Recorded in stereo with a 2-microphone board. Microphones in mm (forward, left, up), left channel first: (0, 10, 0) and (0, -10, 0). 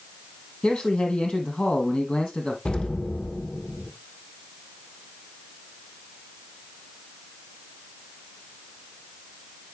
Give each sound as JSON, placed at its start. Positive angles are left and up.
{"t": 0.6, "sound": "a man speaking", "side_deg": 55, "distance_m": 3.0}
{"t": 2.6, "sound": "an explosion", "side_deg": 50, "distance_m": 1.7}